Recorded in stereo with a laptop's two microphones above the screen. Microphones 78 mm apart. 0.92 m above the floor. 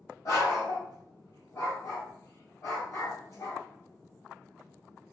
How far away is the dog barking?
About 1.8 m.